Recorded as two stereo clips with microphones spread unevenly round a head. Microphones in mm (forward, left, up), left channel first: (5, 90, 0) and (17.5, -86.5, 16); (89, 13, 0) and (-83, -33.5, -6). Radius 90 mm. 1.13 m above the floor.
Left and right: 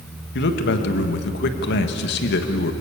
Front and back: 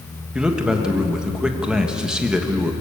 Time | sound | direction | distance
0.3 | a man speaking | 110° left | 1.6 m